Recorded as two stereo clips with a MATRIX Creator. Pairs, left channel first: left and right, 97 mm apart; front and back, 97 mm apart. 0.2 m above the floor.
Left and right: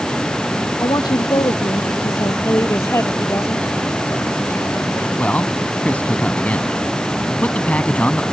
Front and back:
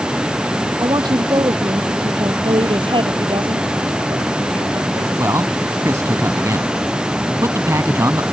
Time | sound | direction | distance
0.8 | a woman speaking | 135° left | ?
2.4 | a woman speaking | 150° left | ?
5.2 | a man speaking | 150° left | ?